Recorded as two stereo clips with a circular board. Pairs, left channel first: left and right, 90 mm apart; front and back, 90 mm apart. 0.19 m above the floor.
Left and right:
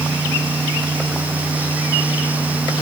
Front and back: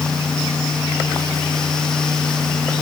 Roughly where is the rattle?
No rattle in this recording.